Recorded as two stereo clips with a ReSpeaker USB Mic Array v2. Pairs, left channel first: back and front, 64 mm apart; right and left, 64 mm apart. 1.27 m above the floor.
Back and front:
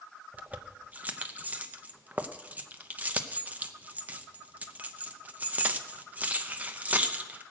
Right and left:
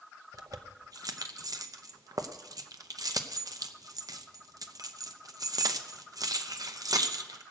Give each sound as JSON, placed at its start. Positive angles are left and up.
{"t": 0.3, "sound": "keys jangling", "azimuth_deg": 65, "distance_m": 0.8}